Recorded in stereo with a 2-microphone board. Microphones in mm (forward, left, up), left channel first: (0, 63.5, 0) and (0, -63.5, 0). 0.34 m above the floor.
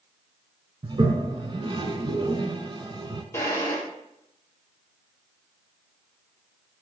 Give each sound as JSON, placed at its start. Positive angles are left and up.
{"t": 0.8, "sound": "a toilet flushing", "side_deg": -40, "distance_m": 0.7}
{"t": 3.3, "sound": "a drawer", "side_deg": 20, "distance_m": 2.0}